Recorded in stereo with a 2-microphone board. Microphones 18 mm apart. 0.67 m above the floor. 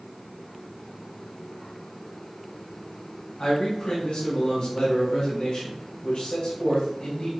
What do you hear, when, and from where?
3.4 s a man speaking: 70° left (ahead or behind), 3.5 m